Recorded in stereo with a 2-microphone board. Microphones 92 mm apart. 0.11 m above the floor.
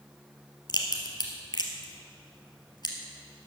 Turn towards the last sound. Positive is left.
turn(degrees=50)  # may be behind; listen again after turning